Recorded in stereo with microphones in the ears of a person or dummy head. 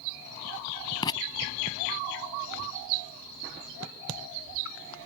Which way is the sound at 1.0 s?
20° left (ahead or behind).